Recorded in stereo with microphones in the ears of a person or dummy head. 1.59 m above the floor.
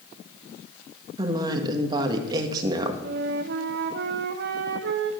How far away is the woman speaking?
About 1.6 m.